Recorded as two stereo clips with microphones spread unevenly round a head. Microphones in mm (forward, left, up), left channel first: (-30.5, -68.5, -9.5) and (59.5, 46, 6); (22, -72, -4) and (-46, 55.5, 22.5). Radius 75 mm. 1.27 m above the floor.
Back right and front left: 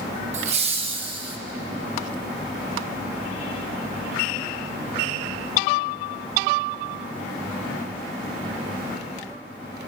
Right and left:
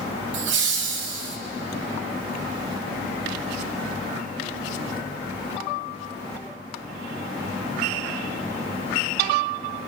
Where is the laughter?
100° left, 1.6 m; by 1.4 s 115° left, 2.5 m.